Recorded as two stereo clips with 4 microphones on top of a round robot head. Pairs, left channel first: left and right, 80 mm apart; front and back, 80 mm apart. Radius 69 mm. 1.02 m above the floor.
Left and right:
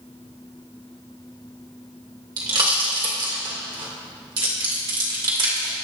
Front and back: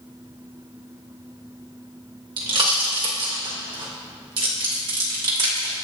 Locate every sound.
2.4 s a pop: 135° right, 2.5 m